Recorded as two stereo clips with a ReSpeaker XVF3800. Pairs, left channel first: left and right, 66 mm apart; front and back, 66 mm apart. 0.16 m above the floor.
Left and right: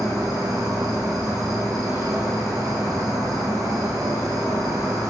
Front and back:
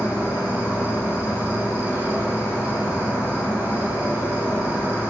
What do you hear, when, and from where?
0.0 s an insect: 115° right, 3 m